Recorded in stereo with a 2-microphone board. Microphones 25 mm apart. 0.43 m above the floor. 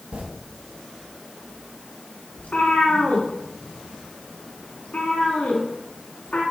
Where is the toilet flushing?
70° right (ahead or behind), 2 m.